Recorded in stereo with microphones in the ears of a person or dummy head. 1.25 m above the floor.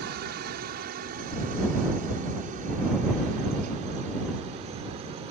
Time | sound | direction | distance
0.0 | a helicopter | 55° right (ahead or behind) | ?